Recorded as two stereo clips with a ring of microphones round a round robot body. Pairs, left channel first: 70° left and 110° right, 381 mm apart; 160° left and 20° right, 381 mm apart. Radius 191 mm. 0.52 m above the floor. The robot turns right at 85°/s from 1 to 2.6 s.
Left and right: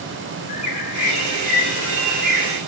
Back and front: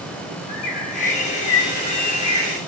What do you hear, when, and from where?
0.5 s a bird: 110° left, 0.6 m; by 2.6 s 115° right, 0.6 m